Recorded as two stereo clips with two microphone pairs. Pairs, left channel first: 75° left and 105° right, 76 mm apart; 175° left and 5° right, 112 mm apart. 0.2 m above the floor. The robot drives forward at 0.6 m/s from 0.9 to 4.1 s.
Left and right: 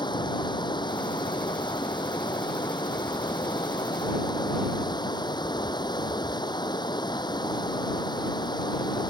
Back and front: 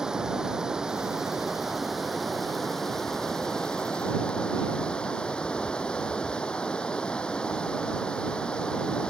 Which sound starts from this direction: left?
Running water, at 0.0 s.